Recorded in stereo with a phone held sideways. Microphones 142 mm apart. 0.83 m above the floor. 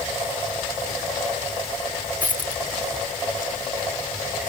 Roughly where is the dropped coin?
Left.